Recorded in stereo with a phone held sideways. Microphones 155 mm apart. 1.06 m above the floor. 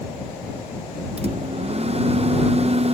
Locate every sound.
1.2 s a microwave: 40° right (ahead or behind)